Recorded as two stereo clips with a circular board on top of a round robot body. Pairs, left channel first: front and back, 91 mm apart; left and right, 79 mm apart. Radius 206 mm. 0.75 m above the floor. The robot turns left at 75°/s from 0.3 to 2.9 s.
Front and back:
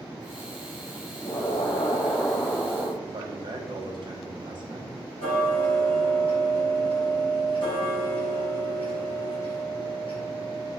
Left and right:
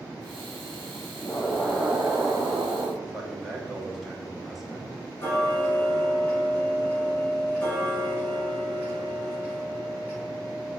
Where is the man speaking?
175° right, 1.4 m.